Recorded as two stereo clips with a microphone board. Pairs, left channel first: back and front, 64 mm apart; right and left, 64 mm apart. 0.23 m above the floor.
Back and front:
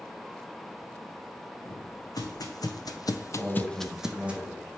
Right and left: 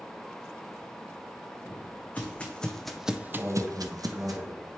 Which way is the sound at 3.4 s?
95° left.